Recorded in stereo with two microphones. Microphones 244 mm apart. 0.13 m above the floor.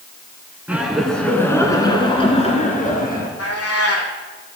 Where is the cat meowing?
75° left (ahead or behind), 1.8 m.